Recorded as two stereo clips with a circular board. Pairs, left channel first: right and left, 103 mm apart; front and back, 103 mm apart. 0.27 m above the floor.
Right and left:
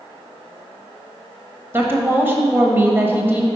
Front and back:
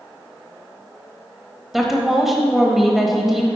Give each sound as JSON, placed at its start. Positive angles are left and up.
{"t": 1.7, "sound": "a woman speaking", "azimuth_deg": 100, "distance_m": 1.0}